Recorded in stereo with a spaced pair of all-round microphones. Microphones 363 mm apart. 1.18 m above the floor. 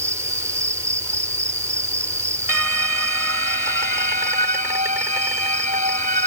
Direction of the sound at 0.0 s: 10° right (ahead or behind).